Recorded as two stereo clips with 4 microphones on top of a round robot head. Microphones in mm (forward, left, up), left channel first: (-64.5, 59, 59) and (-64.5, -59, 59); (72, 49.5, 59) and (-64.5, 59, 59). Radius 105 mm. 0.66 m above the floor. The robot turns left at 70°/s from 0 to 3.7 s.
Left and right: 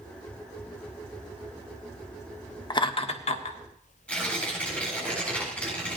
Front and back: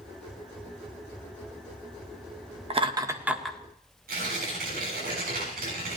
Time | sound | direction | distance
2.7 | laughter | 140° left | 1.8 m
4.1 | tearing paper | 170° left | 8 m